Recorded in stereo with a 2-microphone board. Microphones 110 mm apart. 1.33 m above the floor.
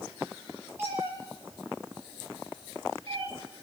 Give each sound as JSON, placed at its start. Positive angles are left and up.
{"t": 0.8, "sound": "a cat meowing", "side_deg": -20, "distance_m": 6.0}